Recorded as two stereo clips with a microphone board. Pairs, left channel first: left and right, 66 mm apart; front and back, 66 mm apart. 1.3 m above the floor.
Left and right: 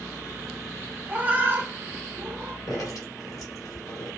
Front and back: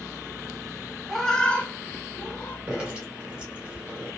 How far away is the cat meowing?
About 0.7 m.